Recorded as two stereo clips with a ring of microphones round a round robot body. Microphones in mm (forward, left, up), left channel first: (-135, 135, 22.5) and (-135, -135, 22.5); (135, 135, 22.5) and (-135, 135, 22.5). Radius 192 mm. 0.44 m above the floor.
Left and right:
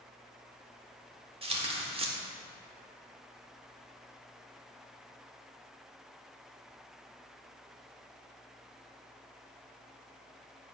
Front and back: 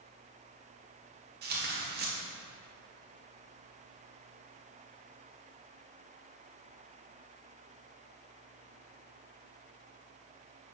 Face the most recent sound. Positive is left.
turn(degrees=-150)